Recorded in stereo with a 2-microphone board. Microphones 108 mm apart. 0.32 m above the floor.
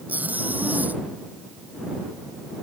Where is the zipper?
15° right (ahead or behind).